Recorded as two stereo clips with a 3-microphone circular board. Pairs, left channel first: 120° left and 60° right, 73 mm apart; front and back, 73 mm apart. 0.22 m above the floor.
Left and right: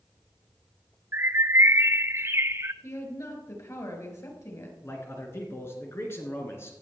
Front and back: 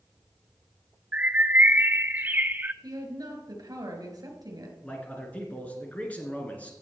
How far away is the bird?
About 0.6 m.